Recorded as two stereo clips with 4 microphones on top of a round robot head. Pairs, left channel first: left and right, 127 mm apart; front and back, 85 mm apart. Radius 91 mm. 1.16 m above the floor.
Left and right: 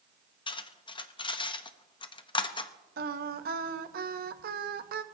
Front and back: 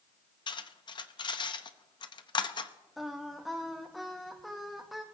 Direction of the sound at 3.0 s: 90° right.